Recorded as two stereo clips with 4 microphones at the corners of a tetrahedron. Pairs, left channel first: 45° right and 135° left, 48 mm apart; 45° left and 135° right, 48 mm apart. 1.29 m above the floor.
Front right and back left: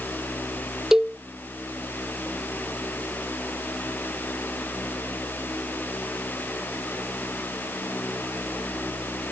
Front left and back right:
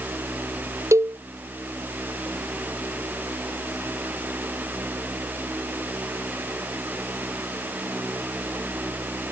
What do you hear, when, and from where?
0.9 s a cowbell: 150° right